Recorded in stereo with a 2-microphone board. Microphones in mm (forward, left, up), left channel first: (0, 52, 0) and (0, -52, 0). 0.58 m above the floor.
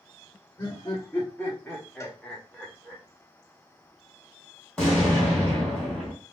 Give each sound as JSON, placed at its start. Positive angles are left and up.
{"t": 0.6, "sound": "laughter", "side_deg": 20, "distance_m": 1.5}
{"t": 2.0, "sound": "a cowbell", "side_deg": 25, "distance_m": 0.7}
{"t": 4.8, "sound": "an explosion", "side_deg": 5, "distance_m": 2.5}